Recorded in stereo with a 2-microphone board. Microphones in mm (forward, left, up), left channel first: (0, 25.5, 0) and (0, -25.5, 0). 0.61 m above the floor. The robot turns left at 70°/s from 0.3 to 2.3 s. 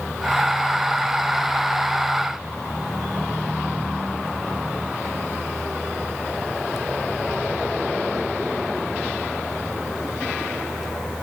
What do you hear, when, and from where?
Only background noise.